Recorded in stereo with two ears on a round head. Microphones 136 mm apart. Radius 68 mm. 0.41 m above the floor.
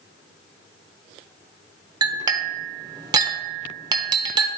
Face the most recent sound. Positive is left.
turn(degrees=-25)  # may be behind; listen again after turning